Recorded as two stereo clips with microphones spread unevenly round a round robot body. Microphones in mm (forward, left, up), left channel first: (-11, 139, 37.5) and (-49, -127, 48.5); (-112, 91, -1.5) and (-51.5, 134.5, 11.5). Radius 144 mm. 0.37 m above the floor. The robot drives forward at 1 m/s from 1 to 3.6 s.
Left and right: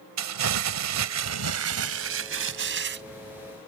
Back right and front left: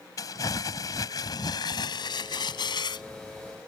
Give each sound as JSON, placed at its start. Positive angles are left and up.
{"t": 0.2, "sound": "crumpling", "azimuth_deg": -105}